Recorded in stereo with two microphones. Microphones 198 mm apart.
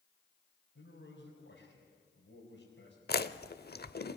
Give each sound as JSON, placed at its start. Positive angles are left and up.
{"t": 0.8, "sound": "a man speaking", "side_deg": 75, "distance_m": 4.5}
{"t": 3.1, "sound": "chewing", "side_deg": 55, "distance_m": 0.8}